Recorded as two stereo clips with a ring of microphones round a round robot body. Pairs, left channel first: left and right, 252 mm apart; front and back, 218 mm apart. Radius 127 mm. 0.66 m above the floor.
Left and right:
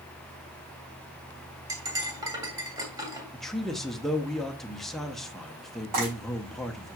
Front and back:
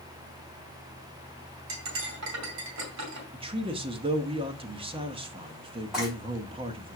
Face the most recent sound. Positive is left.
turn(degrees=-90)